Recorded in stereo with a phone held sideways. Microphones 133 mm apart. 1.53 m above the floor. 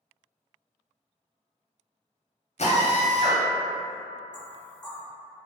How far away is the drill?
About 0.6 m.